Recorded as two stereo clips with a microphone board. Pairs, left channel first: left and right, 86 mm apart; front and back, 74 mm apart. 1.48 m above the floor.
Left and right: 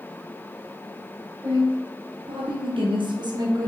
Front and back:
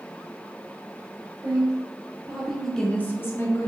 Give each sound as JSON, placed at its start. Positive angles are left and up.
{"t": 1.4, "sound": "a woman speaking", "azimuth_deg": -135, "distance_m": 1.1}